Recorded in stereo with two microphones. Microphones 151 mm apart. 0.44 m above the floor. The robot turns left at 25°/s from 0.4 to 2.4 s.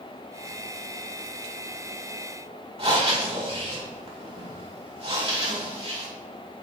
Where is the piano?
I don't hear a piano.